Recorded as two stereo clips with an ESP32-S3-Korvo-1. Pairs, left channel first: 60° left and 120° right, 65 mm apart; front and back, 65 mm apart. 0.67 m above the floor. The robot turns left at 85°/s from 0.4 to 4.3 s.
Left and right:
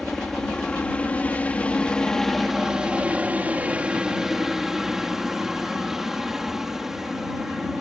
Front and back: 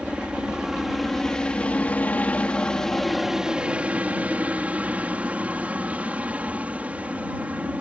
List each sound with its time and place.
0.0 s a helicopter: 140° left; by 7.8 s 165° left